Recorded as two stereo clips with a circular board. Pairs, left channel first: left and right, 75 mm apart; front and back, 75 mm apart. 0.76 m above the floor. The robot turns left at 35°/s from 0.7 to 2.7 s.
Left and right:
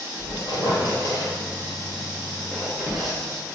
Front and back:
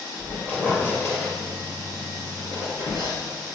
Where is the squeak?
70° left, 2 m; by 3.2 s straight ahead, 2 m.